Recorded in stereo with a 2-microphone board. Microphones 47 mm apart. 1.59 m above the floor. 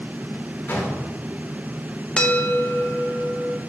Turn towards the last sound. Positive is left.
turn(degrees=20)  # may be behind; listen again after turning